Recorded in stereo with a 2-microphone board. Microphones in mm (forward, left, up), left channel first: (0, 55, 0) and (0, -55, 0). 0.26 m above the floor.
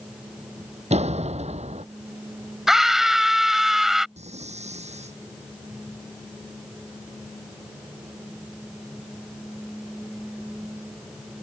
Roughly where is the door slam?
Right.